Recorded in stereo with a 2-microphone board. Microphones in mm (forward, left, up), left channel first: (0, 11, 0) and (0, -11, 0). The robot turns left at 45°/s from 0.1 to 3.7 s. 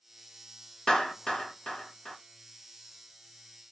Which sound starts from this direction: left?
A clap, at 0.9 s.